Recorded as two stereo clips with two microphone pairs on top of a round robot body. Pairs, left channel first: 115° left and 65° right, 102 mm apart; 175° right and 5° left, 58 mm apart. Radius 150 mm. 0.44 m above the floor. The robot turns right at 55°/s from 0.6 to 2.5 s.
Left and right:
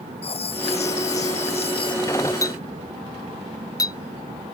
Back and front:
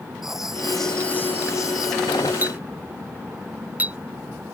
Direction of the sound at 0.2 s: 85° left.